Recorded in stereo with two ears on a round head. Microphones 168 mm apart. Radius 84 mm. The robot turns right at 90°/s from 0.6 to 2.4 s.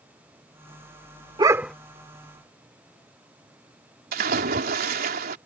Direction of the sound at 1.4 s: 30° right.